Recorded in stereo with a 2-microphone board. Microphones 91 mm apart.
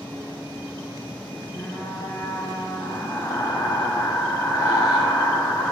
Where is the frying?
40° left (ahead or behind), 3 m.